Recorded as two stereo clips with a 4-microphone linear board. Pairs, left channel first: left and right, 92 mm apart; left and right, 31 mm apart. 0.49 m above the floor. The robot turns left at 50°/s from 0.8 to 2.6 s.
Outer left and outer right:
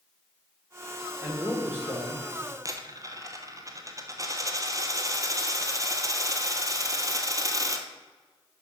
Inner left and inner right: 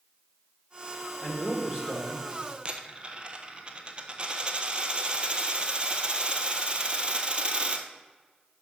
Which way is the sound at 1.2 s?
10° right.